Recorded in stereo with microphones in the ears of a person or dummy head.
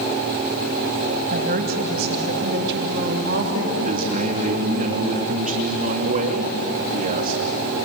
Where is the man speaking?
40° right (ahead or behind), 3 m.